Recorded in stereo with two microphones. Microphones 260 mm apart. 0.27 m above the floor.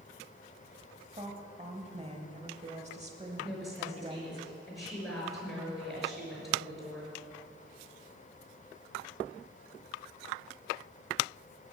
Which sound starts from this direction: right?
A woman speaking, at 1.1 s.